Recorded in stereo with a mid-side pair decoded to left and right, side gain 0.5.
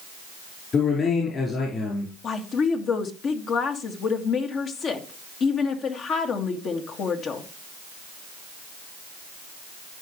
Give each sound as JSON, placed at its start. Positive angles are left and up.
{"t": 0.7, "sound": "a man speaking", "azimuth_deg": 45, "distance_m": 4.5}
{"t": 2.2, "sound": "a woman speaking", "azimuth_deg": 55, "distance_m": 2.0}